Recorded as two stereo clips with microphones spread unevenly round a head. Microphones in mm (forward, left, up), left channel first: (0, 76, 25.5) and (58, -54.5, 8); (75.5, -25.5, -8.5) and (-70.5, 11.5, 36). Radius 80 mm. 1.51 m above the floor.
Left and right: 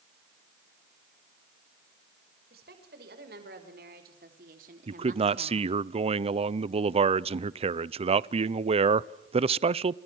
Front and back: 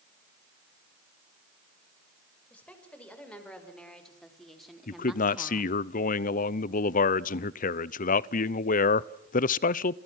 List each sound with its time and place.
2.5 s a woman speaking: 100° right, 6.5 m; by 5.7 s 120° right, 1.9 m
4.9 s a man speaking: 25° right, 0.7 m